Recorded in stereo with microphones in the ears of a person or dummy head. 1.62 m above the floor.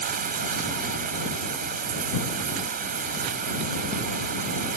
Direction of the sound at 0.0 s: 50° right (ahead or behind).